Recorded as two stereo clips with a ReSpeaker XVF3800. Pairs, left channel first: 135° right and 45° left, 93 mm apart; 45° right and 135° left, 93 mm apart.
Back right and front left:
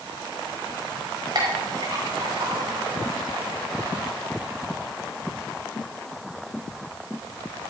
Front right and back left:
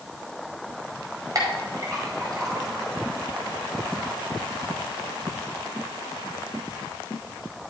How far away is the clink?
About 5 m.